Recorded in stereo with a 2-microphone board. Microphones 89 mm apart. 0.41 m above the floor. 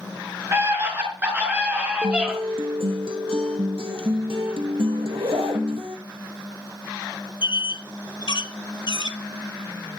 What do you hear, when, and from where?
0.5 s a scream: 30° right (ahead or behind), 6.5 m; by 2.3 s 5° right (ahead or behind), 6 m
2.0 s a guitar: 90° right, 3 m
5.0 s a zipper: 80° right, 3 m
7.4 s a squeak: 55° left (ahead or behind), 1.8 m